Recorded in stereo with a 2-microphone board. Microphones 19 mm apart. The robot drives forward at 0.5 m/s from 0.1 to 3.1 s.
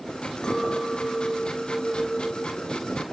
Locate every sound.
0.4 s a clink: 35° left (ahead or behind), 0.9 m; by 3.0 s 20° left (ahead or behind), 1.6 m